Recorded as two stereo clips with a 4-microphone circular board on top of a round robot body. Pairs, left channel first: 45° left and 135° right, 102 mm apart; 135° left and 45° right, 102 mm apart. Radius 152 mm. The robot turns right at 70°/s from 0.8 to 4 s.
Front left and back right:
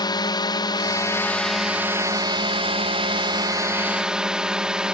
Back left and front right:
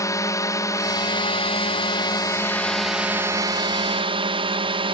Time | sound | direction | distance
0.0 | a drone | 80° left | ?